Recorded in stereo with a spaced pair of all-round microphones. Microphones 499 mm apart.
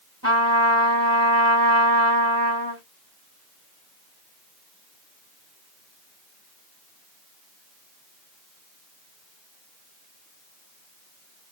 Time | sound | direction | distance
0.2 | a trumpet | 30° right (ahead or behind) | 1.7 m